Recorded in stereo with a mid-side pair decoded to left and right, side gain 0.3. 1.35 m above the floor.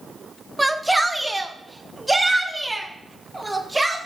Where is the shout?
10° right, 0.9 m; by 4.0 s 15° right, 2.5 m.